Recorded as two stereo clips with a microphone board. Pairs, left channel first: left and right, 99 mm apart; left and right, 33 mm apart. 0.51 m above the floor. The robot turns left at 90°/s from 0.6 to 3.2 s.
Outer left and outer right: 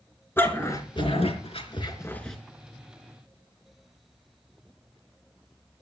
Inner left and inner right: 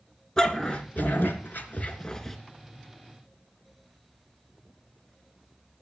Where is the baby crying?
No baby crying in this recording.